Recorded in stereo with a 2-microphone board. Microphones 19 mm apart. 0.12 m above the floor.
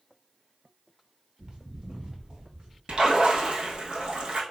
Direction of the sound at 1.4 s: 50° right (ahead or behind).